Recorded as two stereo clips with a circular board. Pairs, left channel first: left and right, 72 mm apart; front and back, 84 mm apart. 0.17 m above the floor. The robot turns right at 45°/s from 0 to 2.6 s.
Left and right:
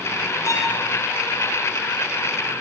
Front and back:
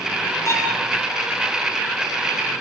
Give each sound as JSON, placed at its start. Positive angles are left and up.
{"t": 0.5, "sound": "a violin", "azimuth_deg": 50, "distance_m": 4.0}